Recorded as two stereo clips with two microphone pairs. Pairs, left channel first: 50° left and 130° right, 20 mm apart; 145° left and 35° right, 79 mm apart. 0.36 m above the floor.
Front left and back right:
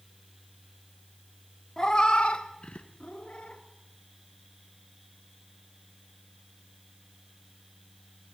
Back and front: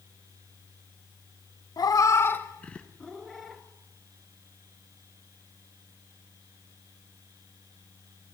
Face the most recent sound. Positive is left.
turn(degrees=55)